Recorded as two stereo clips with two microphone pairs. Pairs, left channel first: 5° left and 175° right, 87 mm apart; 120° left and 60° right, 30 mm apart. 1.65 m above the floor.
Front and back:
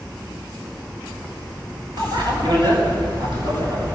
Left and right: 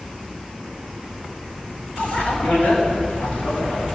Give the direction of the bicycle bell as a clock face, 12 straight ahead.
7 o'clock.